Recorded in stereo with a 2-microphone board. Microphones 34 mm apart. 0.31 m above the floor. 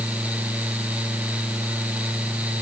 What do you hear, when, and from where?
Only background noise.